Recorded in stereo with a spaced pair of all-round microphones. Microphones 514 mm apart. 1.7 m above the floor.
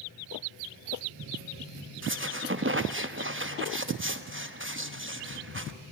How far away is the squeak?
About 1.1 m.